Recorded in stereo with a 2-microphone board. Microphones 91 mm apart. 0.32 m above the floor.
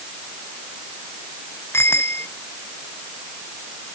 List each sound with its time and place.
1.7 s a bicycle bell: 25° left (ahead or behind)